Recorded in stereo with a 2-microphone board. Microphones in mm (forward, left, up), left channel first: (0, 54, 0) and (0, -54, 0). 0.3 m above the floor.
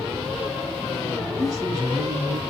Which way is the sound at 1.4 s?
35° right (ahead or behind).